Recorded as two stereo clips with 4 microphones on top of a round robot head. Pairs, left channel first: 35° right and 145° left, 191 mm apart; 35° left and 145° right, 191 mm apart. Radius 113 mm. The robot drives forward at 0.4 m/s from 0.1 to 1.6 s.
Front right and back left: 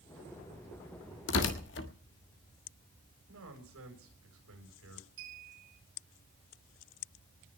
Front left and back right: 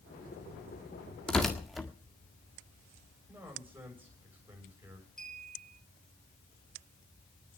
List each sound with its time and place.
1.3 s tearing paper: 50° right, 1.7 m; by 1.9 s 55° right, 1.7 m
3.3 s a man speaking: 135° left, 7.5 m
5.2 s a clink: 125° left, 6 m